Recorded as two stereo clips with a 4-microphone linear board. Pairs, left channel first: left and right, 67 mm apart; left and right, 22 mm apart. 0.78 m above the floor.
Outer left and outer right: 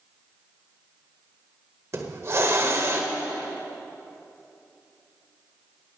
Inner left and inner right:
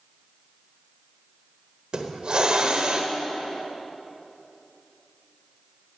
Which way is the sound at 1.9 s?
45° right (ahead or behind).